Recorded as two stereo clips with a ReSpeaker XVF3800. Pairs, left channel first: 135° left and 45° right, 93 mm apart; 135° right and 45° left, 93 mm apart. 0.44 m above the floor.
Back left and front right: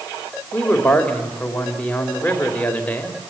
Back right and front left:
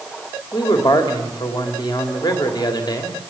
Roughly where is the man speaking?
Behind right.